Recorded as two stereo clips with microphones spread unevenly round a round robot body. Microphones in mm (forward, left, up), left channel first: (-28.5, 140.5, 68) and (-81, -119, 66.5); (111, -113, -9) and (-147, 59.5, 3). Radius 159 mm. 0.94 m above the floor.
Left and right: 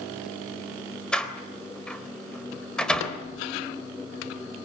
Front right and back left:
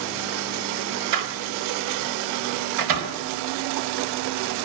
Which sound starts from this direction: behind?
A door slam, at 1.1 s.